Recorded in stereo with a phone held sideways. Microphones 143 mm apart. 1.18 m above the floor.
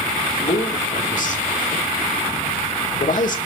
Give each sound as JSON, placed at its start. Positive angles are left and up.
{"t": 0.4, "sound": "a man speaking", "side_deg": 65, "distance_m": 3.0}